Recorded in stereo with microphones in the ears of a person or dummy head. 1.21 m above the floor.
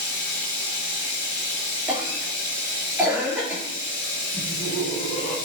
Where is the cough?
5° right (ahead or behind), 3 m.